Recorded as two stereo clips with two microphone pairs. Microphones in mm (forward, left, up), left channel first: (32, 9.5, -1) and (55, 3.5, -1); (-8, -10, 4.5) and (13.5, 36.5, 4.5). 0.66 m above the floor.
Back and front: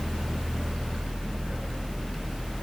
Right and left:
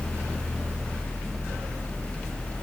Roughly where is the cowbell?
No cowbell in this recording.